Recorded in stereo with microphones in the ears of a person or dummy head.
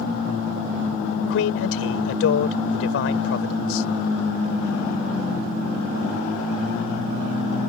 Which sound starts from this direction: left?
A man speaking, at 1.3 s.